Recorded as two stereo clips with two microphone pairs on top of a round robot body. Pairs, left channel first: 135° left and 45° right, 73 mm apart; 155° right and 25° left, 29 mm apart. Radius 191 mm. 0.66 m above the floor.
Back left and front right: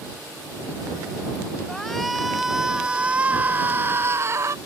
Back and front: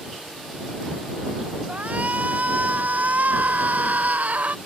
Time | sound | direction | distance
1.7 | a shout | 50° left | ?